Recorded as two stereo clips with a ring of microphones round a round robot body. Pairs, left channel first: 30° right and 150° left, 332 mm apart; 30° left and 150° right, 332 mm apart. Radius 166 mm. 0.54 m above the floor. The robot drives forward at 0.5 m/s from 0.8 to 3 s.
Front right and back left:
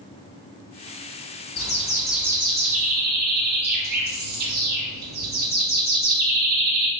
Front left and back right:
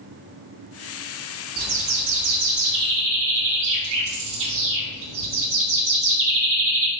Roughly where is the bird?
Right.